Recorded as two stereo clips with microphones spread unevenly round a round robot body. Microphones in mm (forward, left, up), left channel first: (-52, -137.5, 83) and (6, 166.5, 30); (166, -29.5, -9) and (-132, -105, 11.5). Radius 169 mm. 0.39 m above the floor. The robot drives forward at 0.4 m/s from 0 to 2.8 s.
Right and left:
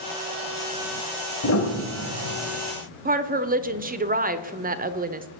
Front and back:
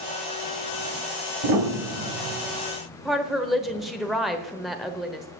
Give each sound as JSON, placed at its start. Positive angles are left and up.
{"t": 1.4, "sound": "a piano", "azimuth_deg": -145, "distance_m": 1.8}
{"t": 3.0, "sound": "a woman speaking", "azimuth_deg": 100, "distance_m": 1.0}